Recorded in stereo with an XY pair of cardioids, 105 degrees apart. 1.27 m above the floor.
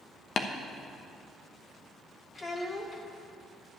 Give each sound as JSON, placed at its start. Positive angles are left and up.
{"t": 0.4, "sound": "tapping", "azimuth_deg": 50, "distance_m": 0.9}
{"t": 2.4, "sound": "a child speaking", "azimuth_deg": 35, "distance_m": 1.6}